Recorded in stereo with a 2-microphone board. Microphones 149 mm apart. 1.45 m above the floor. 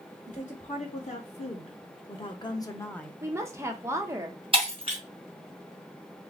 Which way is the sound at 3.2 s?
20° right (ahead or behind).